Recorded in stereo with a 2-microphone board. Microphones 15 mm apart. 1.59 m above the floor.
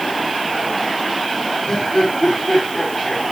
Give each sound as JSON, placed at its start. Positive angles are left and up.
{"t": 1.7, "sound": "laughter", "side_deg": 60, "distance_m": 4.5}